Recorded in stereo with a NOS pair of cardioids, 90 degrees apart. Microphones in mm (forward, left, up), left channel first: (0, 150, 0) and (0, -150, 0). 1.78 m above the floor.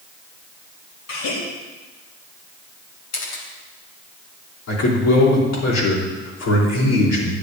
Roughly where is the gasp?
Left.